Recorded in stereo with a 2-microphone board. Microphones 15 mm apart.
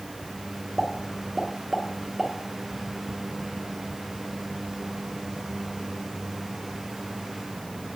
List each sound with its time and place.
0.8 s a pop: 20° right (ahead or behind), 0.9 m